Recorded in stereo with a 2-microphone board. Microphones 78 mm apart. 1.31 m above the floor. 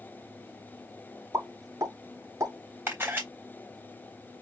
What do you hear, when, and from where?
1.3 s a pop: 40° right (ahead or behind), 3 m
2.9 s a camera shutter: 30° right (ahead or behind), 3.5 m